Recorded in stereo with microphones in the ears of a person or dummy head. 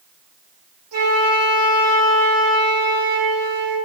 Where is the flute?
85° right, 6 m.